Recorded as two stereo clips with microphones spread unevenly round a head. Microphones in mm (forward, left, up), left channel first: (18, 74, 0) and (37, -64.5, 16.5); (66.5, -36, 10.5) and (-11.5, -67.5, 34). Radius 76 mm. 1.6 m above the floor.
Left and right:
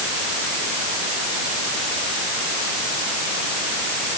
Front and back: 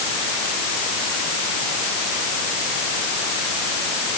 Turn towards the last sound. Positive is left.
No sound to turn to.